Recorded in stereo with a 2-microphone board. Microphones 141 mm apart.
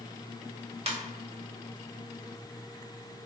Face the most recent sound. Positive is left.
turn(degrees=-45)  # may be behind; listen again after turning